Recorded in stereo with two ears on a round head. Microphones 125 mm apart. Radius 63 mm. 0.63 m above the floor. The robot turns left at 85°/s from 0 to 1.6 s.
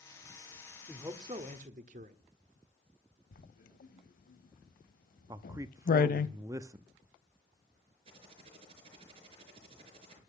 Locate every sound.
0.9 s a man speaking: 5° right, 1.4 m; by 2.2 s 65° right, 1.4 m
3.3 s writing: 65° left (ahead or behind), 0.7 m
5.3 s a man speaking: 20° right (ahead or behind), 0.5 m
8.1 s typing on a keyboard: 40° right (ahead or behind), 4.5 m